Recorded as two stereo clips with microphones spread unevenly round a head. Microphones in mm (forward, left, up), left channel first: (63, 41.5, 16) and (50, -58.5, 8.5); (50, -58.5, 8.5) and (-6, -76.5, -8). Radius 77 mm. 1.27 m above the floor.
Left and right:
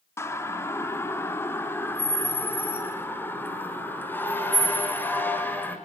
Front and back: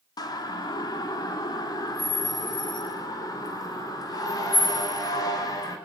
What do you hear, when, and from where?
0.2 s a siren: 20° left, 3.5 m; by 5.8 s 10° left, 6.5 m